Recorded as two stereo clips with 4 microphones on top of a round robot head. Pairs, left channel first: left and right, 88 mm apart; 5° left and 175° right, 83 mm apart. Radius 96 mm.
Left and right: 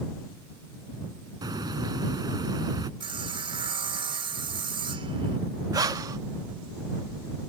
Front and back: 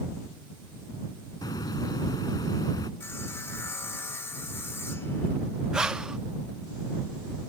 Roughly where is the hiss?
Ahead right.